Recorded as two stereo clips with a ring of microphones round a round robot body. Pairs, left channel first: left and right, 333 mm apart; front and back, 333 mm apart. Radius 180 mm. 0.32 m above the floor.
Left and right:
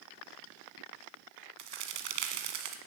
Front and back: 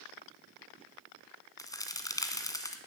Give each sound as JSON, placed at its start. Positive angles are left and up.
{"t": 1.6, "sound": "a crack", "azimuth_deg": -80, "distance_m": 1.6}